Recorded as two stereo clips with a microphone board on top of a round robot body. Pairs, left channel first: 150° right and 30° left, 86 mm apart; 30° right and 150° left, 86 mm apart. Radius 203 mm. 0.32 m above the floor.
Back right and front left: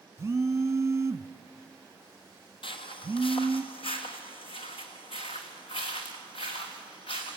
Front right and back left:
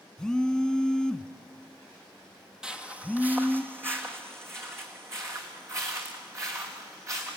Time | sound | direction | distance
0.2 | a phone buzzing | 45° left | 1.1 m
2.6 | footsteps | 130° right | 0.9 m